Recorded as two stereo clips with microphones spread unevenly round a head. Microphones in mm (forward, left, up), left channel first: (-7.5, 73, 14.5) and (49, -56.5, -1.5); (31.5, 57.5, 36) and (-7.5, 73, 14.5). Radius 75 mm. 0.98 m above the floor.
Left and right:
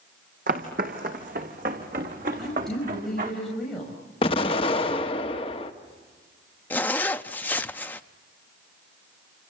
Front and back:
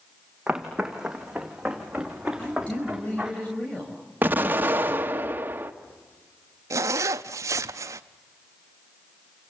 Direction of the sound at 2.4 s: 25° left.